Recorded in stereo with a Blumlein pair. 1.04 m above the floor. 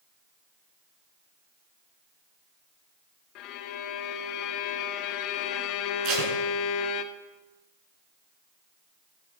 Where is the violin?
40° left, 2 m.